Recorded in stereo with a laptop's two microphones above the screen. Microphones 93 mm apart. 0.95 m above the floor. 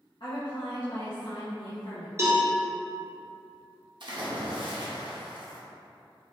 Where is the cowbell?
30° right (ahead or behind), 1.1 m.